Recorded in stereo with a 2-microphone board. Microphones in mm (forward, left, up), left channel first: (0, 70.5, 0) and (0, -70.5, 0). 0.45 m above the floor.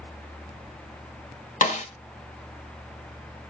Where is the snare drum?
65° left (ahead or behind), 1.4 m.